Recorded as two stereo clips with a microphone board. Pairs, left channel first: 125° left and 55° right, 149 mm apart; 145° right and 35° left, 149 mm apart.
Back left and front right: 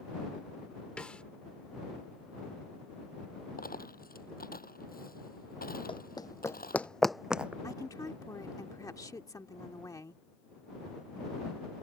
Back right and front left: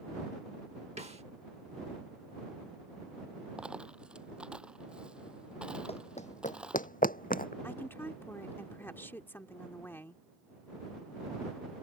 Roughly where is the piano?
I don't hear a piano.